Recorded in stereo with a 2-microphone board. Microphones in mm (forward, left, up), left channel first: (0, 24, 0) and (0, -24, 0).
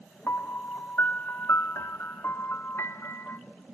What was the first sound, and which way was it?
A piano, 55° left (ahead or behind).